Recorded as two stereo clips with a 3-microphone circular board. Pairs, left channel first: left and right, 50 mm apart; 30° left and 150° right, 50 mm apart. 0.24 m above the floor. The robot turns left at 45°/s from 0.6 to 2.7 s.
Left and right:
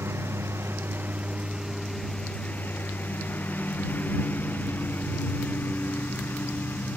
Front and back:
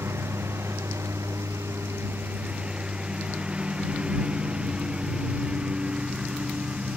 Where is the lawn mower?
125° right; by 7.0 s 145° left.